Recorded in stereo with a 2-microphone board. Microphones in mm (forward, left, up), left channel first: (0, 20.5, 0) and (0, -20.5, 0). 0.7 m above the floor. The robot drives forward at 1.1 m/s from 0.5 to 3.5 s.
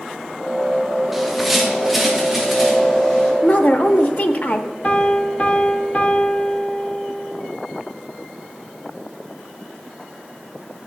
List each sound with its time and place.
1.1 s a bird: 5° right (ahead or behind), 1.0 m; by 3.3 s centre (ahead or behind), 3 m
3.4 s a woman speaking: 45° left (ahead or behind), 0.7 m
4.8 s a piano: 35° left (ahead or behind), 1.0 m